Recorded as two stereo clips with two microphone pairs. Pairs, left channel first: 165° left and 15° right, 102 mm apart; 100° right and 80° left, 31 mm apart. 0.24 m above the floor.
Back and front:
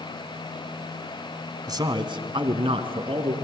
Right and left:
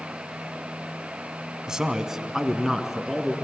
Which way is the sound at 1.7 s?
20° left.